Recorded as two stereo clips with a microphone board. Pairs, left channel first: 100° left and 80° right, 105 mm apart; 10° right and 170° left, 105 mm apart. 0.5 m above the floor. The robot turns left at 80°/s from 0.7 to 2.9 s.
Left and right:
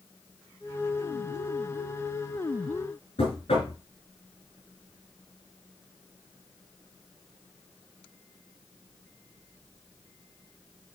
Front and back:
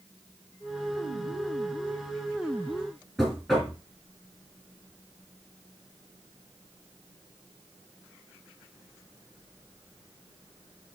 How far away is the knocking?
About 3.5 m.